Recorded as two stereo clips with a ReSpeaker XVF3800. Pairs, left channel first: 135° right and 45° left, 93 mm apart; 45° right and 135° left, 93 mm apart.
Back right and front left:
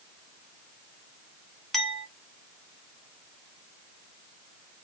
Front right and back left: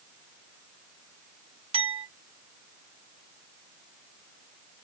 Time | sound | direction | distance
1.7 | a clink | 140° left | 0.7 m